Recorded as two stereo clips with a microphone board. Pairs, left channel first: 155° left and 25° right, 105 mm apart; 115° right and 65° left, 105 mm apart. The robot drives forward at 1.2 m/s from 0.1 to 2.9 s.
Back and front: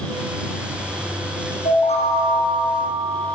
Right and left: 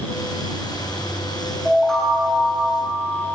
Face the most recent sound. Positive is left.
turn(degrees=165)